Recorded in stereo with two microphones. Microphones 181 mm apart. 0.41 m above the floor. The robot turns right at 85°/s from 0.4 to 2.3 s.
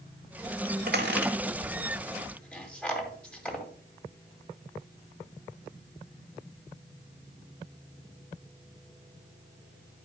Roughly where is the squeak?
Right.